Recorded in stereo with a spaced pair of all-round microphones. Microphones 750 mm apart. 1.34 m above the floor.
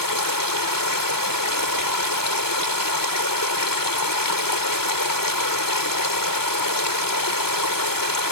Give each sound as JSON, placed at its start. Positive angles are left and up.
{"t": 0.0, "sound": "running water", "side_deg": 25}